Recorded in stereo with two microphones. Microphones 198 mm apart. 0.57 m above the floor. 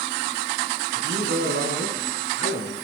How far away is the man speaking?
About 7 m.